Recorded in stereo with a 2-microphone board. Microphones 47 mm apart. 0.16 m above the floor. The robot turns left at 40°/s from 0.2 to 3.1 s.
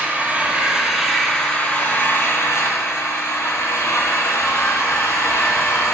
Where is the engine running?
150° right, 1.4 m; by 6.0 s 95° left, 1.4 m.